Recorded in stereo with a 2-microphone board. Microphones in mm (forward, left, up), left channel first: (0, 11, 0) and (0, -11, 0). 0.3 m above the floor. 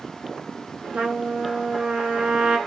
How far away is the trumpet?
About 1.2 m.